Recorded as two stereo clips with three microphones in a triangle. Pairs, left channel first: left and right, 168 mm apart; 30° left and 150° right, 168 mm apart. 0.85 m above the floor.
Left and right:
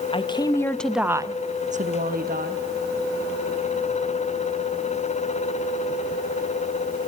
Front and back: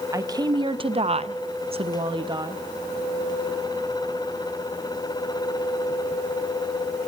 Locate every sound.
0.1 s a woman speaking: 145° left, 0.8 m; by 2.6 s 85° right, 1.0 m